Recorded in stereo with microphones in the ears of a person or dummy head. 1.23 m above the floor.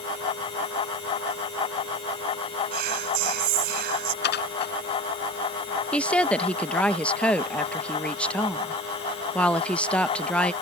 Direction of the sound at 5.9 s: 10° left (ahead or behind).